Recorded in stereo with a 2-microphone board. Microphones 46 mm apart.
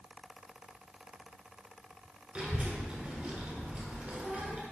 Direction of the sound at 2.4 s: 30° right (ahead or behind).